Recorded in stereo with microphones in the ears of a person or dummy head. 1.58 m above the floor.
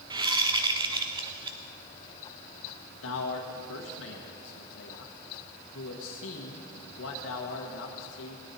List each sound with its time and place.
0.1 s a whoosh: 20° right (ahead or behind), 0.8 m
3.0 s a man speaking: 70° left (ahead or behind), 1.2 m